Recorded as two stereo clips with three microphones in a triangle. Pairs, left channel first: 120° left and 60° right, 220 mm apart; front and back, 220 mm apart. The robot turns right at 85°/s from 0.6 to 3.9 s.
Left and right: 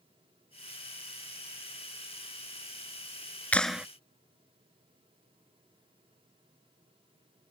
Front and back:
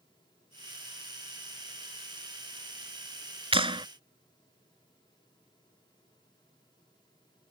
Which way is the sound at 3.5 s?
165° right.